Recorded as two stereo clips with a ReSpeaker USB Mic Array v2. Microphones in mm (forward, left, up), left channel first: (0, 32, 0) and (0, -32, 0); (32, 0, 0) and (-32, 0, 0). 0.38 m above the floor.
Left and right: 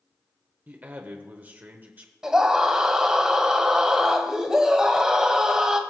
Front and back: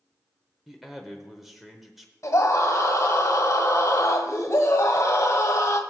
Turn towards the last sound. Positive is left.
turn(degrees=-15)